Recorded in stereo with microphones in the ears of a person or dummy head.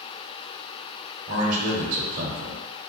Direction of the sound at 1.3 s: 45° right (ahead or behind).